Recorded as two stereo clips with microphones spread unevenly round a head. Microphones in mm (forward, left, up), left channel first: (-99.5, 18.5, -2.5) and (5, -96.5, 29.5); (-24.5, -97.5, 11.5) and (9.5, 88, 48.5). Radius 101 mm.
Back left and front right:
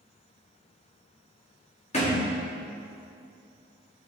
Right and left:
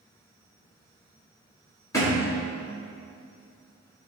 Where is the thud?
Straight behind, 1.8 m.